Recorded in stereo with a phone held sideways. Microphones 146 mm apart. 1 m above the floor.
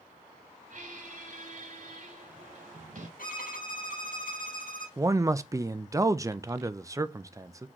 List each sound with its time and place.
0.7 s a squeak: 65° right (ahead or behind), 2.5 m
3.2 s a violin: 75° left (ahead or behind), 5 m
5.0 s a man speaking: 20° right (ahead or behind), 0.6 m